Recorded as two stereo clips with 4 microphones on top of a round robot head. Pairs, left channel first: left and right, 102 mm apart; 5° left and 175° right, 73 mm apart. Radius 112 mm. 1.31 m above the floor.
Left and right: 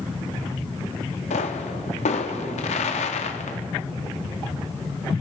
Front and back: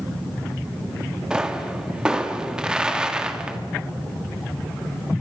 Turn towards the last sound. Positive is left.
turn(degrees=105)